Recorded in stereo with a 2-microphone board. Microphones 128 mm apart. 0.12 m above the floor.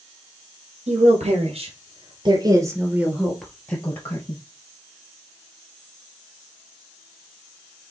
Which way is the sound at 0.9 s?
65° right (ahead or behind).